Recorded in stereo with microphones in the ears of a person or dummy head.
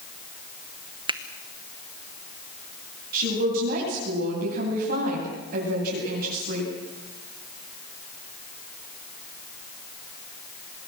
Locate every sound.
1.1 s a finger snap: 25° right (ahead or behind), 1.0 m
3.1 s a woman speaking: 45° right (ahead or behind), 9.5 m